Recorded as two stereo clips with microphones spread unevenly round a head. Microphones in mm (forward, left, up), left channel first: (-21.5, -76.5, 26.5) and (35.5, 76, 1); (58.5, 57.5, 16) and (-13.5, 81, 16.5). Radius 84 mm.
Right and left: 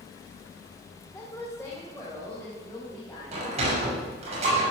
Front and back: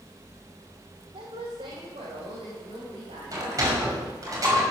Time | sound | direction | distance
1.1 | a woman speaking | 170° left | 2 m
3.3 | a sliding door | 125° left | 5.5 m